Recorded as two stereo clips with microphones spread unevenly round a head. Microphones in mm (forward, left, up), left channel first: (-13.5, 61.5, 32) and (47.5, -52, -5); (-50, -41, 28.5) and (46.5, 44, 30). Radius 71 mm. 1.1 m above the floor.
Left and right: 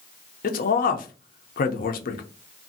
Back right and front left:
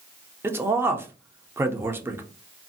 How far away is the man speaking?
About 0.6 m.